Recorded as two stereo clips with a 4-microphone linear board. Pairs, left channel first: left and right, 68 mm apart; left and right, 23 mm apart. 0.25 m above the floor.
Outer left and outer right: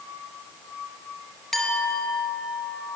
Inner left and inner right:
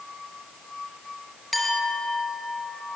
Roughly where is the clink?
Centre.